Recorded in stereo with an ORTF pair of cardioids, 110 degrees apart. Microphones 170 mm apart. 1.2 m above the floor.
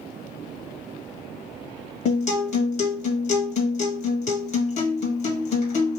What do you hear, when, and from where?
2.0 s a guitar: 50° left, 1.6 m